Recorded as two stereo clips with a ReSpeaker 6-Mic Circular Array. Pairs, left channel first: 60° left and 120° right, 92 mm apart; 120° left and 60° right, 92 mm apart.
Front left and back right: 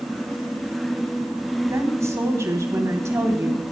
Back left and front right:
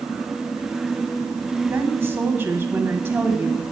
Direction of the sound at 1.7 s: 100° right.